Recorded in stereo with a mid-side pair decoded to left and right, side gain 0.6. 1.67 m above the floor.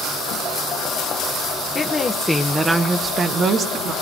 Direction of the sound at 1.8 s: 30° left.